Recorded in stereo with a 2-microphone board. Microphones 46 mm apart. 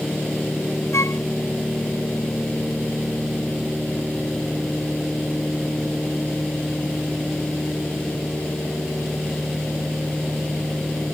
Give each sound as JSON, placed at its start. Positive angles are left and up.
{"t": 0.9, "sound": "a flute", "side_deg": 80}